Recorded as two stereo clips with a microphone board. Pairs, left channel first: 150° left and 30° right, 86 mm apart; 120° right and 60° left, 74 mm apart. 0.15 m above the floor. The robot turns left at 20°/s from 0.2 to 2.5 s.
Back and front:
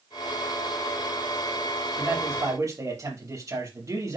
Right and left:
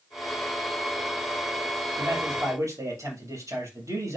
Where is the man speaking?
30° left, 4.5 m; by 4.2 s 20° left, 4.5 m.